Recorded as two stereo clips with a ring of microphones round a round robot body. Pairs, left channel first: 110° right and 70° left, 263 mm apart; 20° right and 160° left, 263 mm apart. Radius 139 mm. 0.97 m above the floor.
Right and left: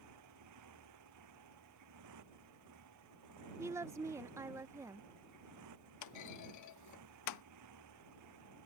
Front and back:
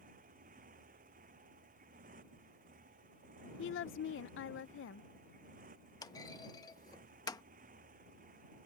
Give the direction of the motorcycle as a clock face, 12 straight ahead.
9 o'clock.